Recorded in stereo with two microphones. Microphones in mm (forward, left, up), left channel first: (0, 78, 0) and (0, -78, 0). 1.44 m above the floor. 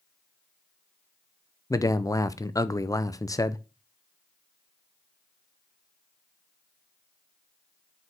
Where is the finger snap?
No finger snap in this recording.